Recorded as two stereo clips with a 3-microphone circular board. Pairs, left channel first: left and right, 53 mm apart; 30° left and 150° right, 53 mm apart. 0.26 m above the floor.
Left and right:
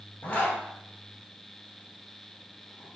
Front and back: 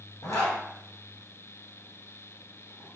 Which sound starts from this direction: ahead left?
A zipper, at 0.2 s.